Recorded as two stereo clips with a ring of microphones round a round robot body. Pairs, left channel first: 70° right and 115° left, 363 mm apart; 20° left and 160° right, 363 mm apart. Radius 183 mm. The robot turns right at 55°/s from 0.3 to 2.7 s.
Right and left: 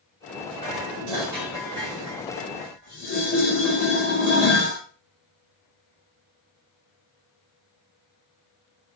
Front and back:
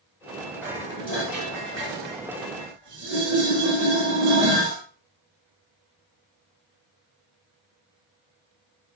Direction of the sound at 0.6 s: 110° left.